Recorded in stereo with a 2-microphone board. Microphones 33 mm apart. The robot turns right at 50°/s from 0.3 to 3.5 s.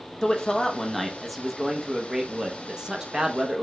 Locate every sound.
0.2 s a man speaking: 15° left (ahead or behind), 0.6 m; by 3.6 s 20° right (ahead or behind), 0.6 m